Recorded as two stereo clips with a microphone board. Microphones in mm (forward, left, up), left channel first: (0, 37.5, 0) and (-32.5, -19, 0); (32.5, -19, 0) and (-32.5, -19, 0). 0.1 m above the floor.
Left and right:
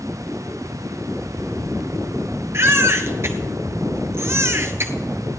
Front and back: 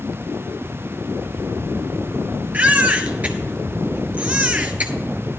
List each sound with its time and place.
2.5 s a baby crying: 125° right, 1.4 m